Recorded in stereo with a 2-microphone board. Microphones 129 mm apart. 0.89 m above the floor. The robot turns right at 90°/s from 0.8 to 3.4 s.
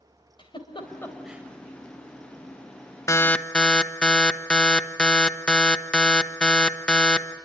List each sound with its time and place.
0.4 s a giggle: 40° left (ahead or behind), 3.5 m; by 1.4 s 20° right (ahead or behind), 3.5 m
3.1 s an alarm: 25° left (ahead or behind), 1.2 m; by 7.3 s 5° left (ahead or behind), 1.2 m